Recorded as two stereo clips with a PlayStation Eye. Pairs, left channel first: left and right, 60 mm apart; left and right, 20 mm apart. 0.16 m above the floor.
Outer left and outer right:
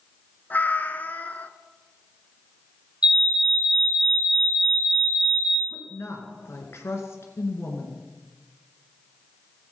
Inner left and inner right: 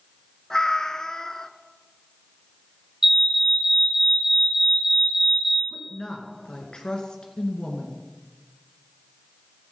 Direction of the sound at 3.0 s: 20° right (ahead or behind).